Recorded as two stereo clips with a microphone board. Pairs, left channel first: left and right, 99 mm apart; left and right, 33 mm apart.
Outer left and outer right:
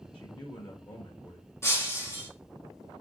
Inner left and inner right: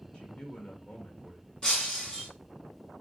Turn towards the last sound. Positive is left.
turn(degrees=30)  # may be behind; listen again after turning